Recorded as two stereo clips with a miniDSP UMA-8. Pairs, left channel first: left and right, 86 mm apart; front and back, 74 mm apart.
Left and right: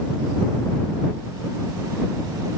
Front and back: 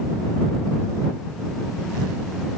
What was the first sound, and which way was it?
Only background noise.